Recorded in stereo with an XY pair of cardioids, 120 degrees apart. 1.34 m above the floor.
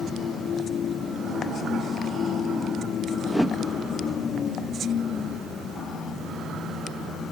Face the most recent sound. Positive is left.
turn(degrees=0)